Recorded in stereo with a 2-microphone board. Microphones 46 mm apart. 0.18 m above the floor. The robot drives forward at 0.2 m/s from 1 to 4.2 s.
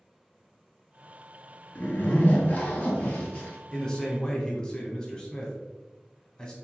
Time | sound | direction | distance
1.8 | a zipper | 45° left (ahead or behind) | 0.8 m
3.7 | a man speaking | 15° left (ahead or behind) | 1.0 m